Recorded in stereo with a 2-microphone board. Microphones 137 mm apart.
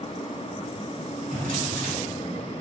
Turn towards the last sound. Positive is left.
turn(degrees=-75)  # may be behind; listen again after turning